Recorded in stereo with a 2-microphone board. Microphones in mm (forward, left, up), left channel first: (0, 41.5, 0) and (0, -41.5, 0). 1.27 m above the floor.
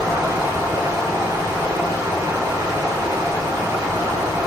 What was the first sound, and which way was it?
Running water, 40° right (ahead or behind).